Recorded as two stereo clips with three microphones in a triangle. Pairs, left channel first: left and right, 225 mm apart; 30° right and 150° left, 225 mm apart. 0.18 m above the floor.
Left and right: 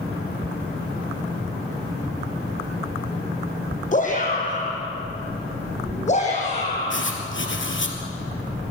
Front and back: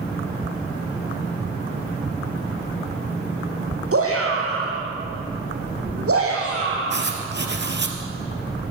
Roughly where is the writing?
Behind left.